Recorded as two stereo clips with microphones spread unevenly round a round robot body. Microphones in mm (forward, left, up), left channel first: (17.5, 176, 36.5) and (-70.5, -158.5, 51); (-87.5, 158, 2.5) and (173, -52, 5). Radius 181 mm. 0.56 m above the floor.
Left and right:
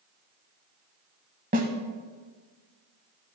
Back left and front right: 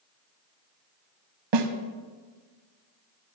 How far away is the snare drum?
About 1.2 m.